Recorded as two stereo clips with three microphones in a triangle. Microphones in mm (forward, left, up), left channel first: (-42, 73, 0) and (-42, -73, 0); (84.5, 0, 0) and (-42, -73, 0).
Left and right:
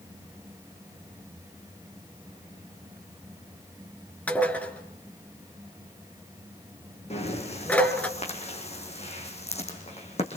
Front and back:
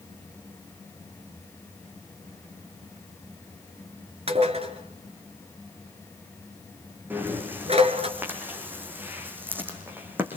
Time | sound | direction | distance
4.3 | dishes clattering | 170° left | 2.5 m
7.1 | breathing | 135° left | 4.5 m